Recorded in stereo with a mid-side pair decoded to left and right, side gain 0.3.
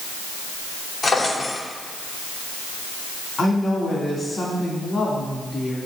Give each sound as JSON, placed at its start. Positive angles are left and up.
{"t": 1.0, "sound": "a drawer", "azimuth_deg": 55, "distance_m": 2.5}
{"t": 3.4, "sound": "a woman speaking", "azimuth_deg": 50, "distance_m": 2.5}